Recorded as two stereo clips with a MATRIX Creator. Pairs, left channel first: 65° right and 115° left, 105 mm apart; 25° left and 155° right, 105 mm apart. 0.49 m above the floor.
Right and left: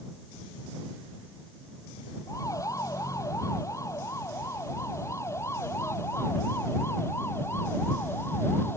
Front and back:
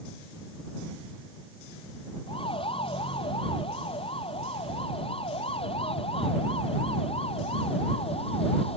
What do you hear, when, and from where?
2.3 s a siren: 10° right; by 8.8 s straight ahead